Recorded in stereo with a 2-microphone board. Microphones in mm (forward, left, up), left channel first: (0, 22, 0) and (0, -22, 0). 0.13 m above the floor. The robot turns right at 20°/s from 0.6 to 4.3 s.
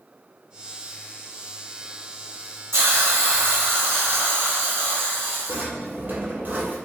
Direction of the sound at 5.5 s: 45° right (ahead or behind).